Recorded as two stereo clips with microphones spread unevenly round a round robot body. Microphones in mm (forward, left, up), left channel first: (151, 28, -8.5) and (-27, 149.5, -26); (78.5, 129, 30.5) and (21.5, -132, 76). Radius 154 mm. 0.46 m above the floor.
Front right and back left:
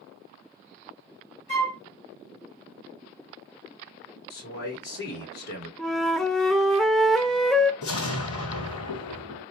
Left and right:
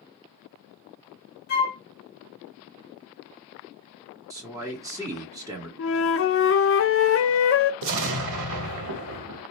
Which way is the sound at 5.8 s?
55° left.